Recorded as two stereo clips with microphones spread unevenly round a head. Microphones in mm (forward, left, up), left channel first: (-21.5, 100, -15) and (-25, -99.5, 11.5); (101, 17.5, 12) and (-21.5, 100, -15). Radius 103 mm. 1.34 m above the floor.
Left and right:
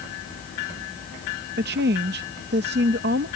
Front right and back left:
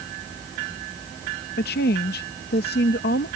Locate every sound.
1.6 s a woman speaking: 50° right